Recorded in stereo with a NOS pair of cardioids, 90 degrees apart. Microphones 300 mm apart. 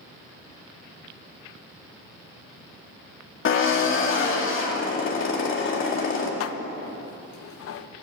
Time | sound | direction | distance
3.5 | a drill | 40° left | 2 m
6.4 | dishes clattering | 55° left | 0.6 m